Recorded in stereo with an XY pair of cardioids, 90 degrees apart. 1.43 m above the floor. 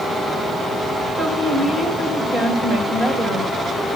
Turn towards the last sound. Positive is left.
turn(degrees=-65)